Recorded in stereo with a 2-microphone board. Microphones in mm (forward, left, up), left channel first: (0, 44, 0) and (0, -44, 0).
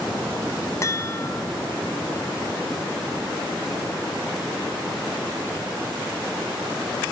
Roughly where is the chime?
Left.